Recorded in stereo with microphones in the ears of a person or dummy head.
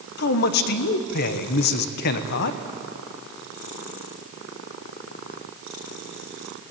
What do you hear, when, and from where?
0.2 s a man speaking: 55° left (ahead or behind), 1.2 m